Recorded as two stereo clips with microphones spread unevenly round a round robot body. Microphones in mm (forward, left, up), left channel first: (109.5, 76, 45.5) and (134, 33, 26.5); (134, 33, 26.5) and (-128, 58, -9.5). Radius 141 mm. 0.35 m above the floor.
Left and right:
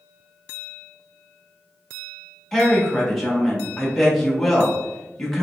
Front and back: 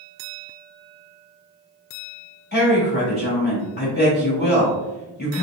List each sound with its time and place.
2.5 s a woman speaking: 5° right, 1.0 m